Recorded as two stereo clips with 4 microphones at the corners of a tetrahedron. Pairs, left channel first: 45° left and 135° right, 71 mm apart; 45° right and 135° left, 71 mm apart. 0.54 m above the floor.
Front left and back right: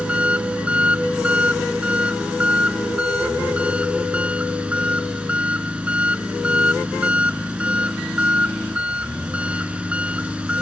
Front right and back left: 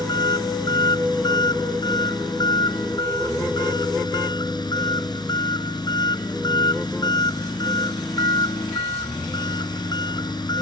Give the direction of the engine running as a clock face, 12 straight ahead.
2 o'clock.